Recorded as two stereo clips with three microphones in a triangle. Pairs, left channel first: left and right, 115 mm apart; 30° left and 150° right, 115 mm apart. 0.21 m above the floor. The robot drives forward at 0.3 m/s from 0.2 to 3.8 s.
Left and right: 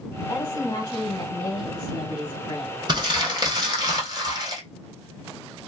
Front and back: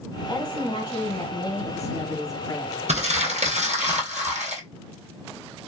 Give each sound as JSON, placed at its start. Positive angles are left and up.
{"t": 0.3, "sound": "a woman speaking", "azimuth_deg": 45, "distance_m": 1.8}
{"t": 2.9, "sound": "crumpling", "azimuth_deg": -140, "distance_m": 1.9}